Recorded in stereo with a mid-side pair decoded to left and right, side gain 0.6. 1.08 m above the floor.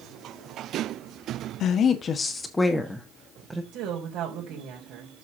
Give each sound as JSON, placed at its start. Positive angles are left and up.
{"t": 1.6, "sound": "a woman speaking", "azimuth_deg": 55, "distance_m": 1.4}
{"t": 3.7, "sound": "a woman speaking", "azimuth_deg": -65, "distance_m": 4.0}